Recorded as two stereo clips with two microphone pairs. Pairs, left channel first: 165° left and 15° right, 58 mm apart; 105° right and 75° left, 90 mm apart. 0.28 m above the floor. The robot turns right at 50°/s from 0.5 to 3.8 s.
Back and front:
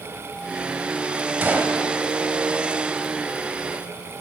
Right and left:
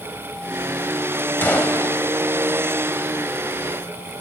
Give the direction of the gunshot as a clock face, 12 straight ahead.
2 o'clock.